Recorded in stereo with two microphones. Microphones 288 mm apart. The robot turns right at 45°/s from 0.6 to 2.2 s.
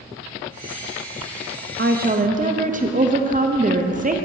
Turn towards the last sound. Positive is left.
turn(degrees=-30)  # may be behind; listen again after turning